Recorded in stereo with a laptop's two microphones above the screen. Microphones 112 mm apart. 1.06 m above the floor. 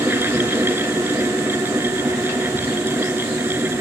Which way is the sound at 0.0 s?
20° right (ahead or behind).